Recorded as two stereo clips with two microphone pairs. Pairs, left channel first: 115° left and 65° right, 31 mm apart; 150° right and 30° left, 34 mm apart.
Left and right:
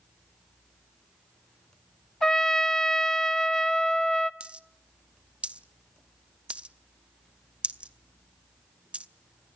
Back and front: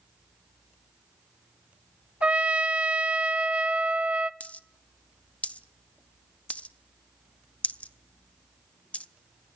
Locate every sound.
2.2 s a trumpet: 55° left, 0.7 m
4.4 s a dropped coin: 110° right, 0.7 m